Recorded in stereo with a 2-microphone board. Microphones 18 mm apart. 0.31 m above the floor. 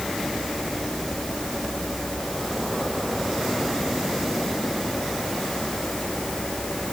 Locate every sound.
Only background noise.